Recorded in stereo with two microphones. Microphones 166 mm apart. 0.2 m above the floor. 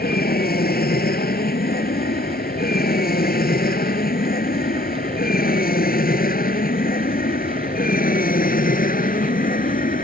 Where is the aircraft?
70° left (ahead or behind); by 10.0 s 60° left (ahead or behind).